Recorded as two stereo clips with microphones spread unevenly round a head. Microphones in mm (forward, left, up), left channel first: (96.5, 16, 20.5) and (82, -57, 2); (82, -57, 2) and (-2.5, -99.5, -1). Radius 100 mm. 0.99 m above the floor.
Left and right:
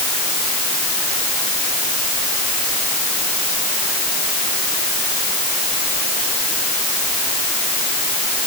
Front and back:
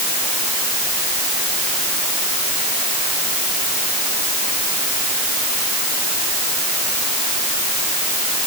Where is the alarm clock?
I don't hear an alarm clock.